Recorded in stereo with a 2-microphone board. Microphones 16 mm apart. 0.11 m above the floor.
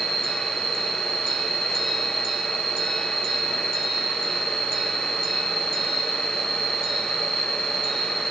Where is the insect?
80° left, 2 m.